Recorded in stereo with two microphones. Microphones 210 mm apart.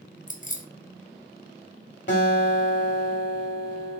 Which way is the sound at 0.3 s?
45° left (ahead or behind).